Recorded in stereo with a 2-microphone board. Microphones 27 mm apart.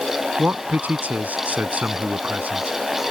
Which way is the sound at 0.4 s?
70° right (ahead or behind).